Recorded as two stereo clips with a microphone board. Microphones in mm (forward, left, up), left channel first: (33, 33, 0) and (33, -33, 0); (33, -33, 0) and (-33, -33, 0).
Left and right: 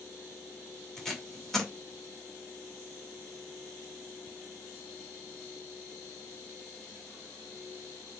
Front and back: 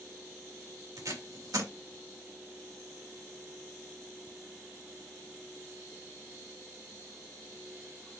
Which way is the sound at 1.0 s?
175° left.